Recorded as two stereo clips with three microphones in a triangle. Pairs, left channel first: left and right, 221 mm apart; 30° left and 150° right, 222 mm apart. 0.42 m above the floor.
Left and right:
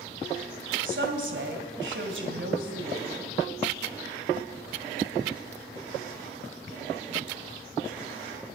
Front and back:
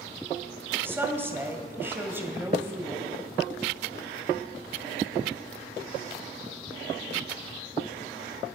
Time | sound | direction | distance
0.8 | a woman speaking | 70° right | 1.8 m